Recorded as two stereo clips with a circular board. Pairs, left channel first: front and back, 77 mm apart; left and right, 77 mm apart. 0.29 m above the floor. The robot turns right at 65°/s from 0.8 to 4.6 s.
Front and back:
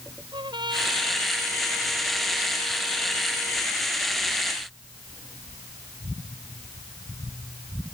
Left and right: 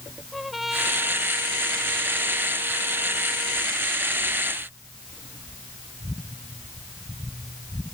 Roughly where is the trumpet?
Behind.